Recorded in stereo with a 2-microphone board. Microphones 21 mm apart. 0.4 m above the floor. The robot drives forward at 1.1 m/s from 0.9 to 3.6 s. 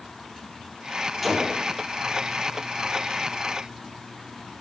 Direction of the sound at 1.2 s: Centre (ahead or behind).